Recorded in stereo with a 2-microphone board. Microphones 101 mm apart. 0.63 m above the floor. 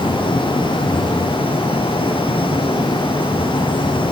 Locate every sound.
Only background noise.